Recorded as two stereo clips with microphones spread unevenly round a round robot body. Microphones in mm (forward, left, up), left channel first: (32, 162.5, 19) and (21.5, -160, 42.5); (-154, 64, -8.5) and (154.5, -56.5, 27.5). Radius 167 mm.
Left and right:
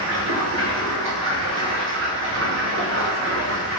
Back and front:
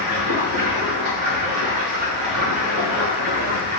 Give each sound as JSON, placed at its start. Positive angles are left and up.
{"t": 0.0, "sound": "running water", "azimuth_deg": -50, "distance_m": 1.3}